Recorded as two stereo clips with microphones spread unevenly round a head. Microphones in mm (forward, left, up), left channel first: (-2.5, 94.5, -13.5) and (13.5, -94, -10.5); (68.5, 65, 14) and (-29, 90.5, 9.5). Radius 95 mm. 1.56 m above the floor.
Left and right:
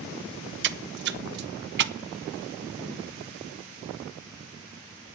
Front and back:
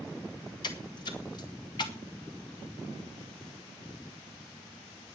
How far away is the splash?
About 0.8 m.